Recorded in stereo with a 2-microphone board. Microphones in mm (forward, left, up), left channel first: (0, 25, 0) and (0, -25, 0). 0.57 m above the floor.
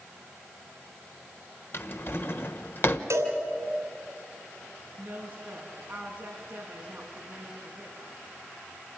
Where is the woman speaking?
30° right (ahead or behind), 6 m.